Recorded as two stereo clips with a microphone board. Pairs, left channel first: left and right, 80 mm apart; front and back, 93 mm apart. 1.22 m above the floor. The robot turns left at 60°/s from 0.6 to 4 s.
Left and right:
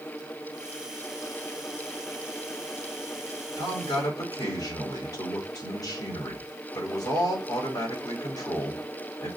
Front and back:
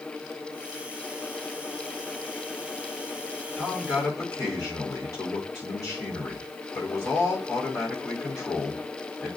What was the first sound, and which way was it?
A man speaking, 80° left.